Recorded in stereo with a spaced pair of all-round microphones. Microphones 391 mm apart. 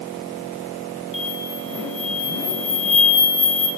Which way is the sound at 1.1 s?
50° left (ahead or behind).